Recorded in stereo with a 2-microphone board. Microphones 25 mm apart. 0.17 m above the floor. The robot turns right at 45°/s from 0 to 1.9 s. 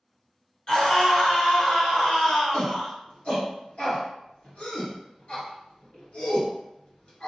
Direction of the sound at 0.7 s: 40° left.